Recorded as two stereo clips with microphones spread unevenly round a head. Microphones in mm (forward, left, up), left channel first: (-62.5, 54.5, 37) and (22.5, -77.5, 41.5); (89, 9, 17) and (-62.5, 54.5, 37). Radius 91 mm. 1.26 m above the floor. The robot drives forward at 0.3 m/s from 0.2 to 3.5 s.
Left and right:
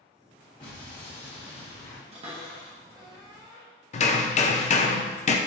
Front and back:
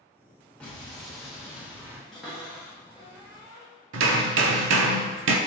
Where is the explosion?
60° left, 1.2 m; by 2.0 s 85° left, 1.1 m.